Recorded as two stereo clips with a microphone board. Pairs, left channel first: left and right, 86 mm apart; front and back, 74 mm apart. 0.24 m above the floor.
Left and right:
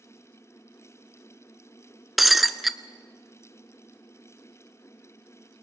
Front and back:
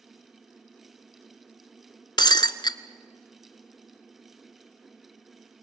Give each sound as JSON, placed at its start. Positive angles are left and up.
{"t": 2.2, "sound": "breaking glass", "azimuth_deg": 0, "distance_m": 0.7}